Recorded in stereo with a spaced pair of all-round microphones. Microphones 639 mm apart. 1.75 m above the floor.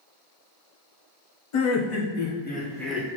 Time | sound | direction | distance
1.5 | laughter | 50° left (ahead or behind) | 0.7 m